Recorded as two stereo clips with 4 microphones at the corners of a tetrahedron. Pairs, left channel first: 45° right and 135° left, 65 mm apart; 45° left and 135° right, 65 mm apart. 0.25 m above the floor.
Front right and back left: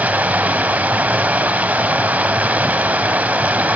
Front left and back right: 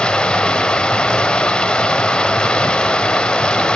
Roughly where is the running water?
Left.